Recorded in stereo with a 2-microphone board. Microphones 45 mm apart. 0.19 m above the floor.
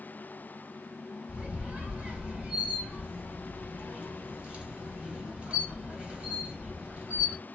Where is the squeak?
25° right (ahead or behind), 1.6 m.